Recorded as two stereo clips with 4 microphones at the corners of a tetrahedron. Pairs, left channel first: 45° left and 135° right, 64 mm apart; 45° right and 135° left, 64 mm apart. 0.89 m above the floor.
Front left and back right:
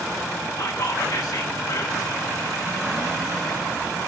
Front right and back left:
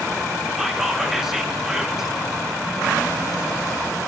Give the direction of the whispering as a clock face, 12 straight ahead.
10 o'clock.